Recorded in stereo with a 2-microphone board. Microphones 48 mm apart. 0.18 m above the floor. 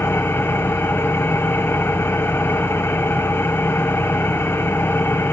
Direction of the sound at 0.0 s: 40° left (ahead or behind).